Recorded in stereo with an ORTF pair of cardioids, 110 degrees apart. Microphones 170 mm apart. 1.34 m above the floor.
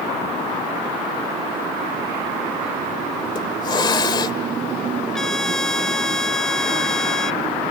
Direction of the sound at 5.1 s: 5° left.